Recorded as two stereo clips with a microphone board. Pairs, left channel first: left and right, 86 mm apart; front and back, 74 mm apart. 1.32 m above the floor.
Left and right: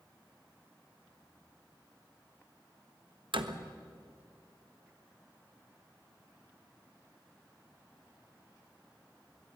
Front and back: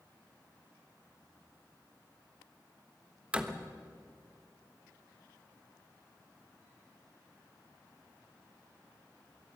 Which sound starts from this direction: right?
A door slam, at 3.3 s.